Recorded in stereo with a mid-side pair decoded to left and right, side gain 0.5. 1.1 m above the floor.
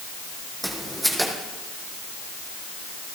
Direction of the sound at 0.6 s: 10° right.